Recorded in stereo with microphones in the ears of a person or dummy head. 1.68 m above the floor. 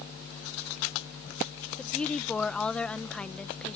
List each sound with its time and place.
1.8 s a woman speaking: 5° left (ahead or behind)